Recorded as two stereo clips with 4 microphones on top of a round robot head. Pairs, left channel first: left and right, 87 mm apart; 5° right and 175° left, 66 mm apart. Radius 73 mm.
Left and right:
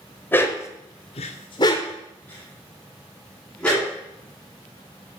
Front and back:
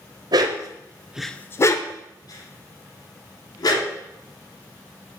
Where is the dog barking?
155° left, 1.2 m; by 3.9 s 5° left, 3.5 m.